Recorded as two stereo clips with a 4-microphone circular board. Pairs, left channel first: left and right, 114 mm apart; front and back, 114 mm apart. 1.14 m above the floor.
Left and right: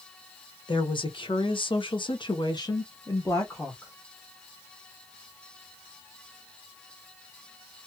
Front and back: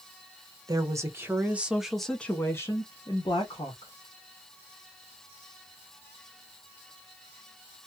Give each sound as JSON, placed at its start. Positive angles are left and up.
{"t": 0.7, "sound": "a woman speaking", "azimuth_deg": 125, "distance_m": 1.2}